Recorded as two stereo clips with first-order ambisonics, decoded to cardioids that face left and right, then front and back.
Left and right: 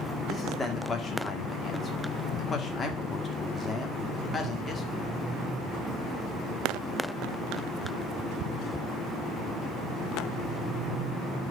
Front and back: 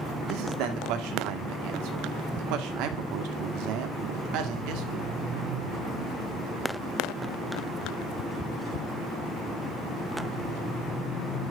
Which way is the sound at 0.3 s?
160° left.